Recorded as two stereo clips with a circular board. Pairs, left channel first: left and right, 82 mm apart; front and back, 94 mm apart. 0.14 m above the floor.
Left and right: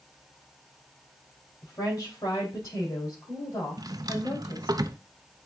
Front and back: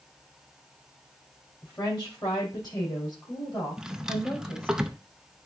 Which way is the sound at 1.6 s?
45° left.